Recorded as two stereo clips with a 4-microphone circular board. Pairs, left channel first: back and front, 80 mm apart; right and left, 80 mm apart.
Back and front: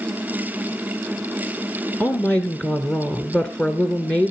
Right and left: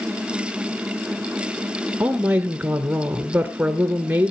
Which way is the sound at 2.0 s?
130° left.